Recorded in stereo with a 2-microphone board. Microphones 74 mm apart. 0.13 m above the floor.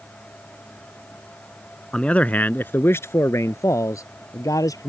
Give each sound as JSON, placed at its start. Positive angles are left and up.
{"t": 1.9, "sound": "a man speaking", "side_deg": 10}